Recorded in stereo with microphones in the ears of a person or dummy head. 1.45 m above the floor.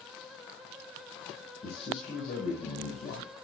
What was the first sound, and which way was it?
A man speaking, 40° left (ahead or behind).